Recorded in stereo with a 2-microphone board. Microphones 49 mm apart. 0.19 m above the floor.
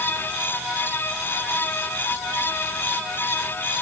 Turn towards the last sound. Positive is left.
No sound to turn to.